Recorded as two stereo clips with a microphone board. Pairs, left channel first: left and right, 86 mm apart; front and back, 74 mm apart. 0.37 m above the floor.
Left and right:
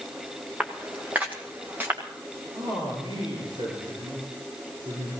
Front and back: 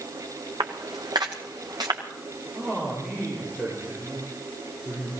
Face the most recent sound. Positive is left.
turn(degrees=-100)